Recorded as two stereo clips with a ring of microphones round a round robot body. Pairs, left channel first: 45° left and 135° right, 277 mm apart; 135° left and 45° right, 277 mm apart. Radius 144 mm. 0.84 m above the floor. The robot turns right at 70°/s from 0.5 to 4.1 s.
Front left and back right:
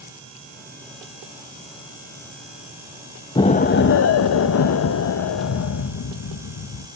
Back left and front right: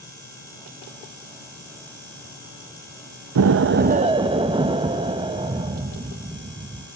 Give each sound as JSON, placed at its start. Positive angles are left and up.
{"t": 3.4, "sound": "an explosion", "azimuth_deg": -30, "distance_m": 0.6}